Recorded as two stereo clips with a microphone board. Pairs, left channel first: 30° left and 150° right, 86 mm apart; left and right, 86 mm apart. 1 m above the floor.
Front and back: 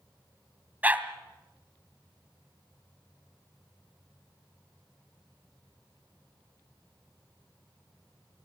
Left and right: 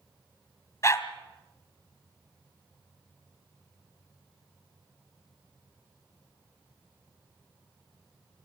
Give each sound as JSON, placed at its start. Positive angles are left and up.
{"t": 0.8, "sound": "a dog barking", "azimuth_deg": 140, "distance_m": 1.7}